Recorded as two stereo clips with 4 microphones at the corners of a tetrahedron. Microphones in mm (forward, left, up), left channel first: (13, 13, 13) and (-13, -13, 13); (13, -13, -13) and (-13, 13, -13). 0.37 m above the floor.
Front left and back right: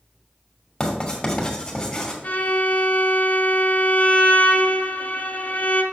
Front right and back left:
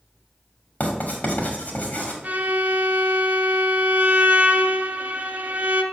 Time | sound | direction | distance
0.8 | writing | 20° right | 2 m
2.2 | a violin | 90° left | 0.9 m